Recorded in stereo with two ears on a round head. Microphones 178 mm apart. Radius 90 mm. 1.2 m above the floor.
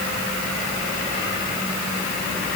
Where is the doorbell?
I don't hear a doorbell.